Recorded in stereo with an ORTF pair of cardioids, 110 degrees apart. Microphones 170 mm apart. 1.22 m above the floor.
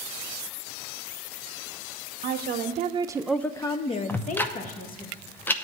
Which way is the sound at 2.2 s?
65° right.